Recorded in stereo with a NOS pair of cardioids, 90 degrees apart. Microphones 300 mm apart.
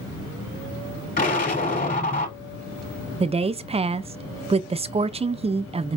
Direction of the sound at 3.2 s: 20° right.